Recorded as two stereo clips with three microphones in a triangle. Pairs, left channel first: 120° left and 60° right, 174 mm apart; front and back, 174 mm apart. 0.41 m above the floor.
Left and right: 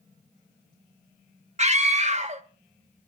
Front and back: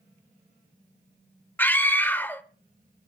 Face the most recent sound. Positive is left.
turn(degrees=-75)